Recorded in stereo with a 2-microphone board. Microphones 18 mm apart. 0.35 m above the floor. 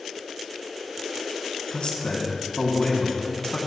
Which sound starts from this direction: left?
A man speaking, at 1.7 s.